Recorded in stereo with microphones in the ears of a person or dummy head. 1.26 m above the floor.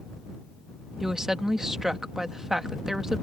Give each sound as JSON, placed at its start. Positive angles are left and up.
{"t": 1.0, "sound": "a woman speaking", "side_deg": -5}